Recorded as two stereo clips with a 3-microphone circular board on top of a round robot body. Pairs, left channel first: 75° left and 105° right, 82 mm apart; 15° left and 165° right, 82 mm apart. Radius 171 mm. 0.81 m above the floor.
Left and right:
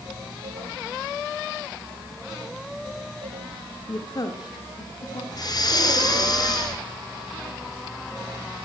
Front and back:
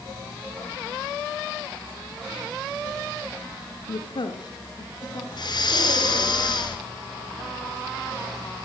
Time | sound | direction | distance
3.9 | a woman speaking | 20° left | 1.5 m
5.3 | breathing | 40° left | 2.5 m